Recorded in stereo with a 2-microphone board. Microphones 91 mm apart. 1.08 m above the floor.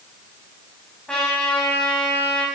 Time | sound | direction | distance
1.1 | a trumpet | 10° left (ahead or behind) | 6.5 m